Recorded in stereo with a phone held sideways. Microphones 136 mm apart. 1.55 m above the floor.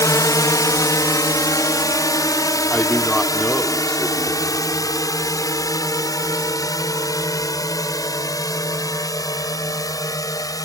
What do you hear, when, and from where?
0.0 s a drone: 25° left (ahead or behind)
2.7 s a man speaking: 5° left (ahead or behind)